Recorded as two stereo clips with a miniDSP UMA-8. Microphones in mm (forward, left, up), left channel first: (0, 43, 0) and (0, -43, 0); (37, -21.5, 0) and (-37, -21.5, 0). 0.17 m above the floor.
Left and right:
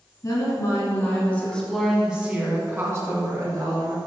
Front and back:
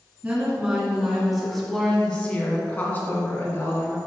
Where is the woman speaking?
115° left, 1.8 m; by 4.0 s 55° right, 2.5 m.